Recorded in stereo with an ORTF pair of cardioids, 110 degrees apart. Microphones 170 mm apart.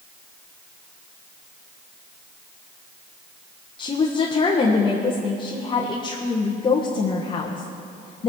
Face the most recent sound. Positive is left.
turn(degrees=30)